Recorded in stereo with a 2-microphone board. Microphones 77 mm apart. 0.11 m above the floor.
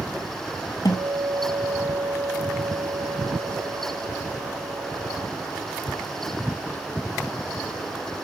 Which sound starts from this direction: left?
A guitar, at 0.8 s.